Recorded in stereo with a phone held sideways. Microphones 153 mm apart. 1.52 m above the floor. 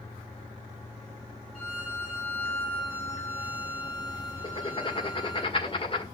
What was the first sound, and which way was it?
A violin, 5° left (ahead or behind).